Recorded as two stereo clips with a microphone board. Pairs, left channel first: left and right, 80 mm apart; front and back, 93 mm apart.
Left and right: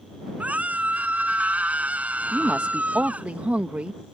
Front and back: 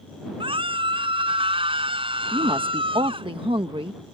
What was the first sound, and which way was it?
A scream, 160° right.